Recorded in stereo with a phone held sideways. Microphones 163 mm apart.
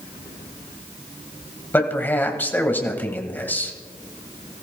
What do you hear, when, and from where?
1.7 s a man speaking: 10° left (ahead or behind), 1.7 m